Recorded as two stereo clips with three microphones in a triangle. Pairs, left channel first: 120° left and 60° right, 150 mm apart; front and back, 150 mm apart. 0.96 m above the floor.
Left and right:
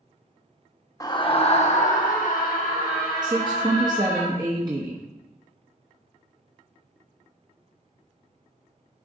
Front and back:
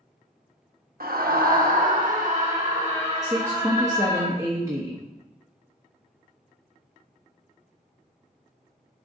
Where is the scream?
175° right, 1.1 m; by 4.2 s 125° left, 3.5 m.